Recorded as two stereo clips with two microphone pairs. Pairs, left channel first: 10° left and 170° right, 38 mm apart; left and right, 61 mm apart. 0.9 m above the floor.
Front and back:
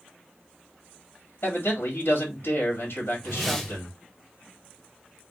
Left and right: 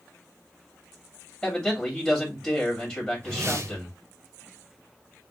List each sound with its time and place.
1.4 s a man speaking: 5° left, 2 m
3.2 s a whoosh: 75° right, 0.9 m